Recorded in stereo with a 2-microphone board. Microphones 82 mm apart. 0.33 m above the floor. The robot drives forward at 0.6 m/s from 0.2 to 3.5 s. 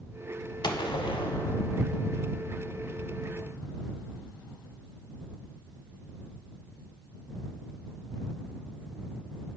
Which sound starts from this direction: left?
A gunshot, at 0.6 s.